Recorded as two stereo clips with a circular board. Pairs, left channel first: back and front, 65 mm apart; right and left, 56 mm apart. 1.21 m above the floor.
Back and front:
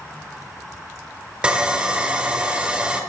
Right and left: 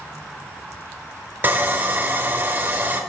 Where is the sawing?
65° left, 1.1 m.